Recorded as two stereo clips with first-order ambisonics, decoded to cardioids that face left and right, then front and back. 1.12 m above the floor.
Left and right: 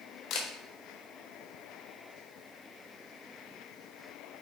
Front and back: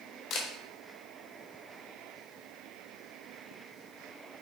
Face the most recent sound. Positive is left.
turn(degrees=50)